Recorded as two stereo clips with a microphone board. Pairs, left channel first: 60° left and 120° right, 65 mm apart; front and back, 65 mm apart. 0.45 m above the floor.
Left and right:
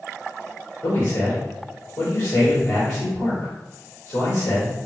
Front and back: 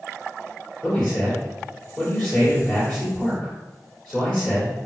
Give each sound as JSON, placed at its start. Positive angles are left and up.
{"t": 0.8, "sound": "a man speaking", "azimuth_deg": 60, "distance_m": 1.8}